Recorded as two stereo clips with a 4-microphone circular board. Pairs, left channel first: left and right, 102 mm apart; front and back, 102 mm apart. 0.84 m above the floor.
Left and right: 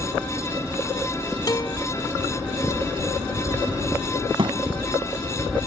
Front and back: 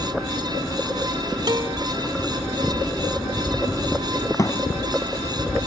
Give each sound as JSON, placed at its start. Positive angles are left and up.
{"t": 1.5, "sound": "a guitar", "azimuth_deg": 135}
{"t": 4.4, "sound": "a thud", "azimuth_deg": -55}